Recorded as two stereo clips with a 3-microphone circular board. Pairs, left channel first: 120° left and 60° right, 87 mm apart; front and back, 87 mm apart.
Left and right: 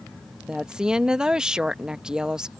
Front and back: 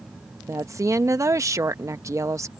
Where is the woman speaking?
135° right.